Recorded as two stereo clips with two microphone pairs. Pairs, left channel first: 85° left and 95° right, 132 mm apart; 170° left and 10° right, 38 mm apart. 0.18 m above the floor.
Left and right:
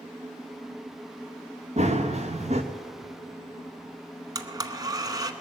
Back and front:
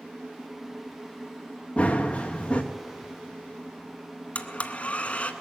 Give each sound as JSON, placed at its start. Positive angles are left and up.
{"t": 1.8, "sound": "running footsteps", "azimuth_deg": -130, "distance_m": 1.5}
{"t": 4.3, "sound": "a blender", "azimuth_deg": -145, "distance_m": 0.9}